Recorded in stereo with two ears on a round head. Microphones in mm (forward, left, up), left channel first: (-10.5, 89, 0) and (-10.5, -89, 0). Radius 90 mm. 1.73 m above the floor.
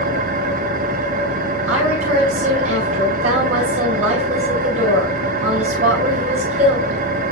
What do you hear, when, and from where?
0.0 s an engine running: 45° right (ahead or behind), 1.2 m
1.7 s a woman speaking: 40° right (ahead or behind), 8 m